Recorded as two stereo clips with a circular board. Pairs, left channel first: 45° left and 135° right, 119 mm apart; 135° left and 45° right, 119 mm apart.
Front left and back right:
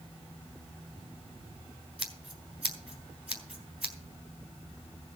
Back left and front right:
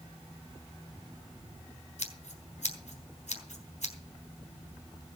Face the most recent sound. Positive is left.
turn(degrees=145)